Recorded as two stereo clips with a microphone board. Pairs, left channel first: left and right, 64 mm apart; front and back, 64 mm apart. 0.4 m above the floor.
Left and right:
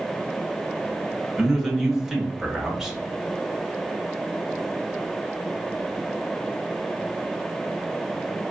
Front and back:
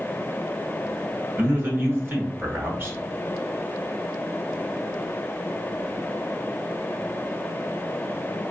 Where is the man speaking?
170° right, 0.9 m.